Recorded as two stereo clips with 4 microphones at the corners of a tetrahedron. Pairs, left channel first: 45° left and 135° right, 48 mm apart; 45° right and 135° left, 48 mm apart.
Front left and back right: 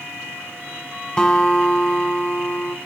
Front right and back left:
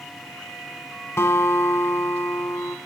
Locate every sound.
1.2 s a guitar: 25° right, 1.2 m